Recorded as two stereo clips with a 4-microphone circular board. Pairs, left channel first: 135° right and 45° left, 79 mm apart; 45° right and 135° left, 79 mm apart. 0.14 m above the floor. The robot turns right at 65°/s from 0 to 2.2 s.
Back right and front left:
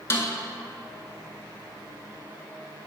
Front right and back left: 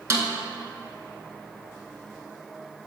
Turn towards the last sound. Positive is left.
turn(degrees=-50)